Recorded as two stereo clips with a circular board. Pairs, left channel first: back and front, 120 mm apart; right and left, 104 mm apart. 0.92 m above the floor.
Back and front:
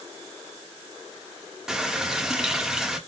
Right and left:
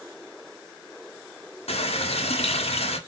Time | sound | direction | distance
1.7 | a running tap | 85° right | 1.5 m